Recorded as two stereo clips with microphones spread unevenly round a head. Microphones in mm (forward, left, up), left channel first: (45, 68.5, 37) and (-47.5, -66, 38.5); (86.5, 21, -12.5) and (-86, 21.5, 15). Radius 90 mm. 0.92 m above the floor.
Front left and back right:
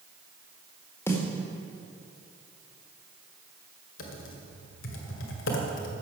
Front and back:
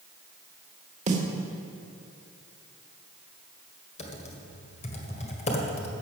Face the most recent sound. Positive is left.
turn(degrees=55)